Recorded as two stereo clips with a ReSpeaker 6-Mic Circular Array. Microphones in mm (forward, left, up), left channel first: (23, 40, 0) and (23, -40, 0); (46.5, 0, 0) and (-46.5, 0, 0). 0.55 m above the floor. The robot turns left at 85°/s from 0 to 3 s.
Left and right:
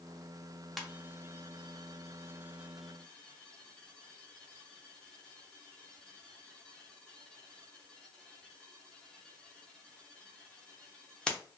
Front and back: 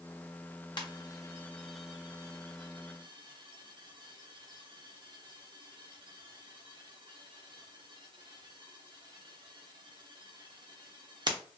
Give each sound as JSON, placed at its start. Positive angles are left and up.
{"t": 0.8, "sound": "a ringtone", "azimuth_deg": -5, "distance_m": 0.7}